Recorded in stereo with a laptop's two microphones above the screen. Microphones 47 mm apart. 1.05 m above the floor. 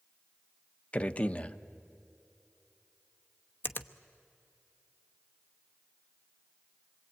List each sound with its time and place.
0.9 s a man speaking: 30° left (ahead or behind), 1.0 m
3.6 s a finger snap: 50° left (ahead or behind), 1.0 m